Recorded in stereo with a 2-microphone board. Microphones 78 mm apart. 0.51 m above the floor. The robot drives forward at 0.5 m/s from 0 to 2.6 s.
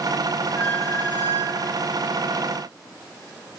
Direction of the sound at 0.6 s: 30° left (ahead or behind).